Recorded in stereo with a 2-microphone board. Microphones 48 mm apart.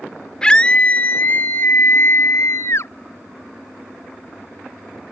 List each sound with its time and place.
0.4 s a scream: 20° left (ahead or behind); by 2.9 s 65° left (ahead or behind)